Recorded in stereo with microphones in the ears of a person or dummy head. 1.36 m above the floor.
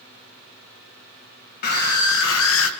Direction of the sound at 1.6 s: 55° left (ahead or behind).